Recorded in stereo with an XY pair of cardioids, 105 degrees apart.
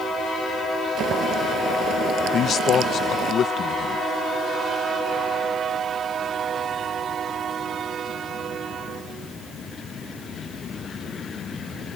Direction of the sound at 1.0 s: 60° right.